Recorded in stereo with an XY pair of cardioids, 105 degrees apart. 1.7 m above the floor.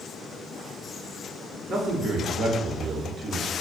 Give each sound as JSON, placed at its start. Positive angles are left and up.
{"t": 1.7, "sound": "a man speaking", "azimuth_deg": -50, "distance_m": 1.1}